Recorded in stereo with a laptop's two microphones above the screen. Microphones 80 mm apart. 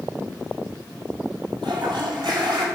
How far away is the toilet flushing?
About 4.5 m.